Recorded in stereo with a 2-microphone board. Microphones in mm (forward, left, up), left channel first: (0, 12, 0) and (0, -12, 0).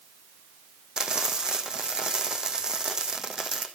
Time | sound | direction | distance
1.0 | frying | 30° right (ahead or behind) | 2 m